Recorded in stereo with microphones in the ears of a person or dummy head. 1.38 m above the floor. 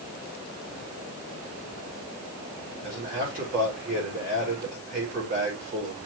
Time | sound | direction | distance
2.8 | a man speaking | 40° right (ahead or behind) | 4.5 m